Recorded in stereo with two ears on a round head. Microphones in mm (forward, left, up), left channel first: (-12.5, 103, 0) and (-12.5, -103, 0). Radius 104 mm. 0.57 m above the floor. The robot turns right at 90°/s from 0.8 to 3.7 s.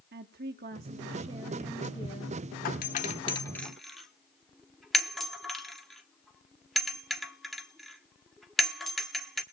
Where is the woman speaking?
80° right, 0.9 m; by 2.4 s 65° left, 0.9 m.